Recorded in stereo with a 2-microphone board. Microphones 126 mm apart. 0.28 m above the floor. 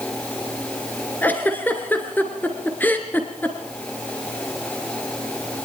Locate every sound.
1.2 s a giggle: 15° left (ahead or behind), 2.5 m